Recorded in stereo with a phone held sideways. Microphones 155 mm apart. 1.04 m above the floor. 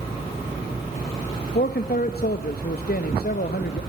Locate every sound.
1.6 s a man speaking: 70° left (ahead or behind), 1.2 m